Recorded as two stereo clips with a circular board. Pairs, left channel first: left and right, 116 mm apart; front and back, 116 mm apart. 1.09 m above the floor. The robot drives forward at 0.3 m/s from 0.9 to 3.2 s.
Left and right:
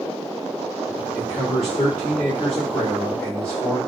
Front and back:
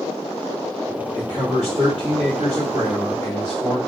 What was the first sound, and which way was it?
A man speaking, 160° left.